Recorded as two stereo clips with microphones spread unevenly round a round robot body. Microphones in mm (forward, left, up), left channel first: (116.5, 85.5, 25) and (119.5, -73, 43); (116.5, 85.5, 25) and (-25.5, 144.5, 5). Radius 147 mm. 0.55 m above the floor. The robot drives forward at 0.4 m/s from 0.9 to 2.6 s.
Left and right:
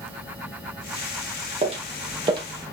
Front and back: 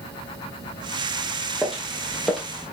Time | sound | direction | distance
1.6 | footsteps | 105° right | 0.7 m